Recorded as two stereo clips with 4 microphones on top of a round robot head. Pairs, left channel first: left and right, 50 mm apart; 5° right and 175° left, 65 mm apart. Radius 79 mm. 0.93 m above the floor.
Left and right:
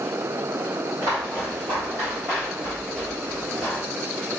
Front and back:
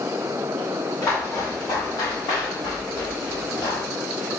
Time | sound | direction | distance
1.0 | footsteps | 60° right | 2.0 m